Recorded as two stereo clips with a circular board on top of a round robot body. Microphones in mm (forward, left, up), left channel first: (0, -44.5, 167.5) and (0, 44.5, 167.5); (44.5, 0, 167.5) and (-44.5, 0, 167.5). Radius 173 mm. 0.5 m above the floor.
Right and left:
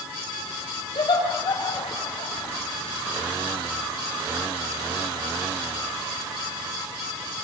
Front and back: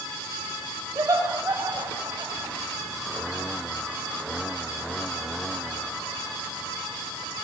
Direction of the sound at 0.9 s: 120° right.